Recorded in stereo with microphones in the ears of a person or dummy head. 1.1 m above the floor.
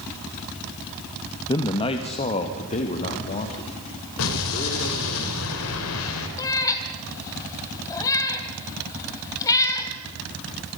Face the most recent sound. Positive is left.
turn(degrees=20)  # may be behind; listen again after turning